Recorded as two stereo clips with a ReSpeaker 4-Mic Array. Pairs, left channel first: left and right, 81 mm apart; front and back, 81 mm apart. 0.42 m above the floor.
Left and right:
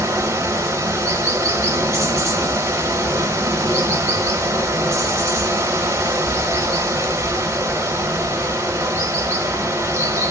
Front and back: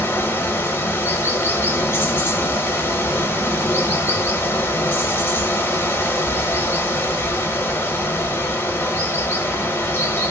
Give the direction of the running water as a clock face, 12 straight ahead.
2 o'clock.